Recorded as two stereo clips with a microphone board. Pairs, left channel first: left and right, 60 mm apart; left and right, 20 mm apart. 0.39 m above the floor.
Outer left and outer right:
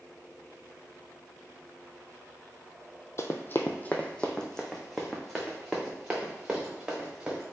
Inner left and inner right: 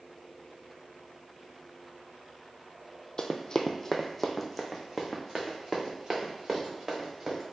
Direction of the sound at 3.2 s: 50° left (ahead or behind).